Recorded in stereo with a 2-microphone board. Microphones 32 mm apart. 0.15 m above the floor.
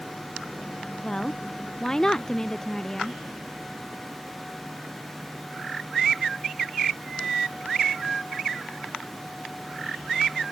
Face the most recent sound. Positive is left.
turn(degrees=20)  # may be behind; listen again after turning